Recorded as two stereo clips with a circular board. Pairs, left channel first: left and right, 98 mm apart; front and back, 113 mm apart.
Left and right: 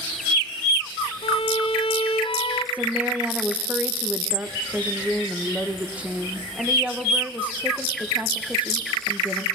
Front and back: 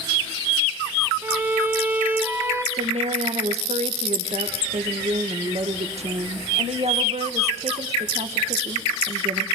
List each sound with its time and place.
1.2 s a violin: 105° left, 2.5 m
2.7 s a woman speaking: 165° right, 1.9 m